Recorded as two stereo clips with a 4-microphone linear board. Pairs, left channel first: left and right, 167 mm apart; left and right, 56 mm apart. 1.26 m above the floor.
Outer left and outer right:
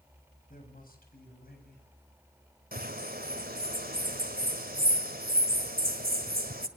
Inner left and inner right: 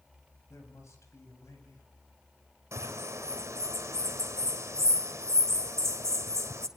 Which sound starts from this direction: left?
A man speaking, at 0.5 s.